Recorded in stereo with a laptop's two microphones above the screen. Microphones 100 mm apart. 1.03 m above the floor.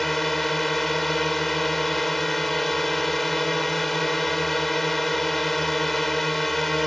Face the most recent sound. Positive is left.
turn(degrees=0)  # may be behind; listen again after turning